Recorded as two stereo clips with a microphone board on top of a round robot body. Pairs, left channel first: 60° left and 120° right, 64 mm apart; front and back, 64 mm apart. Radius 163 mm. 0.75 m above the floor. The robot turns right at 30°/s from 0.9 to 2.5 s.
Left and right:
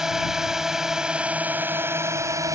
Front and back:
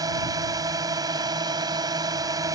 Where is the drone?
160° left; by 2.6 s 155° right.